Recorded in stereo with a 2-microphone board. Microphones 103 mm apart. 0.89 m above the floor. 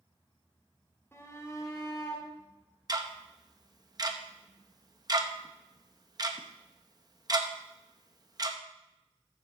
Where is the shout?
20° left (ahead or behind), 2 m; by 2.3 s 35° left (ahead or behind), 1.9 m.